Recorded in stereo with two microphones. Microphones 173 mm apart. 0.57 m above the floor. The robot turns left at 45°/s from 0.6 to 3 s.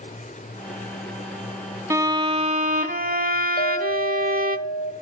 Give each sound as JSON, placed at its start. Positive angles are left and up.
{"t": 1.9, "sound": "a violin", "azimuth_deg": -20, "distance_m": 0.7}
{"t": 3.6, "sound": "a clink", "side_deg": 65, "distance_m": 2.0}